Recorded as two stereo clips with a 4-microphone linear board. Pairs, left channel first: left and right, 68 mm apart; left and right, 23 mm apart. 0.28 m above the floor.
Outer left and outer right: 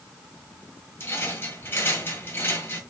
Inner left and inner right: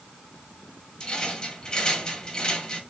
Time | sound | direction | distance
1.0 | a rattle | 35° left (ahead or behind) | 1.5 m